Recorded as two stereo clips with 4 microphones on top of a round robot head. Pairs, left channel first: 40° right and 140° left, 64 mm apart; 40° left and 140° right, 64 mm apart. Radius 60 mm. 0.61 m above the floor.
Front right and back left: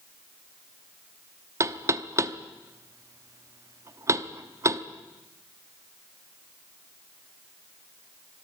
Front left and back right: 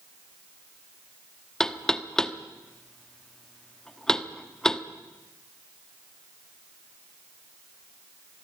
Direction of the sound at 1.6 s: 120° left.